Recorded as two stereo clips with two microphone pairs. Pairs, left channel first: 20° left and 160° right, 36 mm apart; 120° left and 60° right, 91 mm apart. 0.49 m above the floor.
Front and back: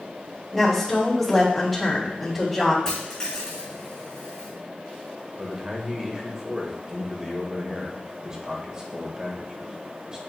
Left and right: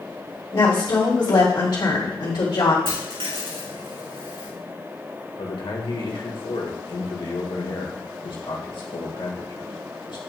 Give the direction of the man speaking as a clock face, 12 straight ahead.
8 o'clock.